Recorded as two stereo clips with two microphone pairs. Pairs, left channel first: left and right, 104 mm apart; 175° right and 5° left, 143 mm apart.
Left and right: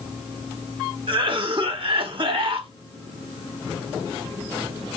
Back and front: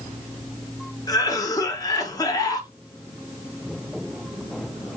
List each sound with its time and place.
1.1 s a cough: 115° right, 1.2 m